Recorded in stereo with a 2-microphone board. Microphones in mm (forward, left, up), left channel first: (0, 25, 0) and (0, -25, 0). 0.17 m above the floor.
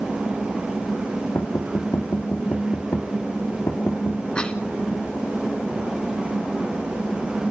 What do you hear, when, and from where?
1.4 s knocking: 60° left (ahead or behind), 3 m
4.3 s a cough: 20° left (ahead or behind), 1.2 m